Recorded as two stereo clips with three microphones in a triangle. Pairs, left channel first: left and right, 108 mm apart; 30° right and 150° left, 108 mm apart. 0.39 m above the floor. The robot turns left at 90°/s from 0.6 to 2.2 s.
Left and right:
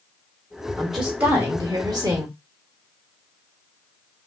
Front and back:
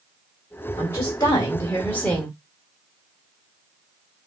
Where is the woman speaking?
15° left, 0.9 m; by 2.4 s 115° right, 0.9 m.